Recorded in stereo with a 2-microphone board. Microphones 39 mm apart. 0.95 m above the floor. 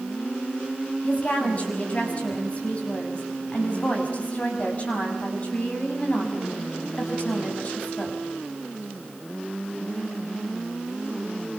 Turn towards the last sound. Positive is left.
turn(degrees=35)  # may be behind; listen again after turning